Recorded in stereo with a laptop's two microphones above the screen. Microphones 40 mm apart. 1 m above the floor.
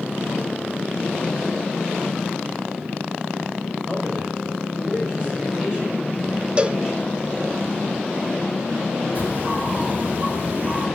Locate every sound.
3.9 s a man speaking: 30° right (ahead or behind), 6 m; by 7.6 s 15° right (ahead or behind), 7.5 m
6.6 s a cowbell: 25° right (ahead or behind), 0.9 m
9.2 s a bird: 40° right (ahead or behind), 5 m